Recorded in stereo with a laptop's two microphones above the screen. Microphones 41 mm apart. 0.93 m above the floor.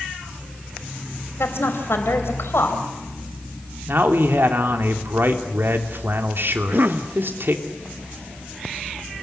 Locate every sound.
1.4 s a woman speaking: 70° left (ahead or behind), 4 m
3.9 s a man speaking: 55° right (ahead or behind), 3 m
6.5 s a cough: 50° right (ahead or behind), 1.1 m